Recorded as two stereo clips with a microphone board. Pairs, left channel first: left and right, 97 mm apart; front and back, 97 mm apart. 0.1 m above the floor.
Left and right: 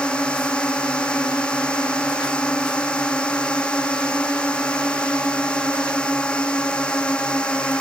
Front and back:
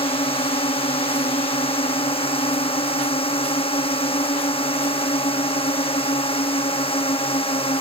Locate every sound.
0.0 s a drone: 10° left